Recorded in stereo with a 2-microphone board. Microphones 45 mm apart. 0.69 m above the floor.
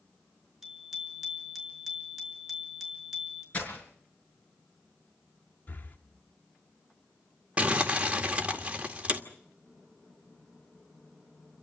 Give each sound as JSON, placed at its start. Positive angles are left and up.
{"t": 0.6, "sound": "a bicycle bell", "side_deg": -5, "distance_m": 6.5}
{"t": 3.5, "sound": "breaking glass", "side_deg": 30, "distance_m": 6.5}
{"t": 5.7, "sound": "breathing", "side_deg": 40, "distance_m": 1.4}
{"t": 7.6, "sound": "crumpling", "side_deg": -25, "distance_m": 2.0}